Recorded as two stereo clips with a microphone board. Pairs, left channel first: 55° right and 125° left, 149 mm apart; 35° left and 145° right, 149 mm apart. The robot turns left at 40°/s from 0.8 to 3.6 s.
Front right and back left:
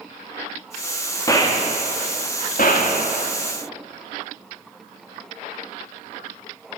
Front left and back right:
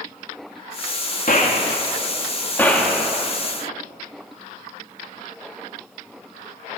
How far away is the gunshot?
About 1.7 m.